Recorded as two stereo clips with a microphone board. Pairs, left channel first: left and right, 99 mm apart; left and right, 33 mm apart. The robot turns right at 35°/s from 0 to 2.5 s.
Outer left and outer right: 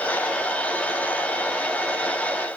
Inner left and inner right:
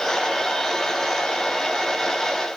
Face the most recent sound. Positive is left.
No sound to turn to.